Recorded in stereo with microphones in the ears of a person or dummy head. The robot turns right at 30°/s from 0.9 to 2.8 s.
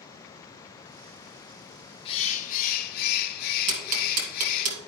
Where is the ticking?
40° right (ahead or behind), 1.9 m.